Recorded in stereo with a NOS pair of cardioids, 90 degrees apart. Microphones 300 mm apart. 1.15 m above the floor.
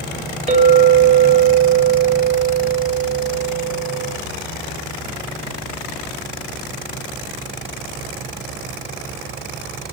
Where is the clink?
20° right, 0.8 m.